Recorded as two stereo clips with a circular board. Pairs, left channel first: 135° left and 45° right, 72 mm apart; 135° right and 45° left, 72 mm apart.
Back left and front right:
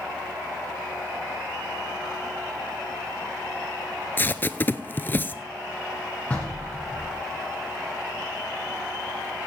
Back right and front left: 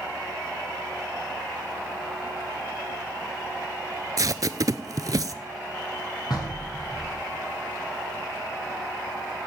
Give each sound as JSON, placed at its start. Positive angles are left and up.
{"t": 4.2, "sound": "tape being pulled", "azimuth_deg": 75, "distance_m": 0.6}
{"t": 6.3, "sound": "knocking", "azimuth_deg": -155, "distance_m": 4.5}